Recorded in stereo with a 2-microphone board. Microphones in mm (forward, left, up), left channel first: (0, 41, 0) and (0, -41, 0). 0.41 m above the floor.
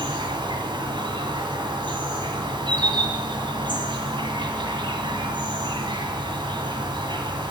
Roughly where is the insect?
Right.